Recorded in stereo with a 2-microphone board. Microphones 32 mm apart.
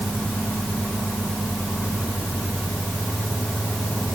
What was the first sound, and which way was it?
Only background noise.